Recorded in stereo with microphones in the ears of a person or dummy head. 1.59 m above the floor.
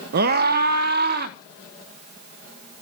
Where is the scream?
50° right (ahead or behind), 1.2 m.